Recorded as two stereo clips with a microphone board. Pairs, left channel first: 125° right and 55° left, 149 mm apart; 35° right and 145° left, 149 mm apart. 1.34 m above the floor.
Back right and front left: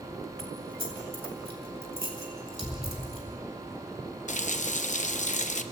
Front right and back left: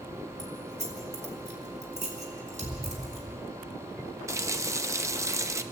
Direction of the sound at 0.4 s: 105° left.